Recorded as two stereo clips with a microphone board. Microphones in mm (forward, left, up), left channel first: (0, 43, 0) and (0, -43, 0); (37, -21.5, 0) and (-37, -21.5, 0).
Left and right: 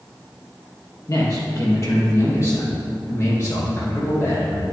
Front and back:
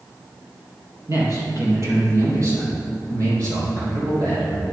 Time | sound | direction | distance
1.1 | a man speaking | 140° left | 3 m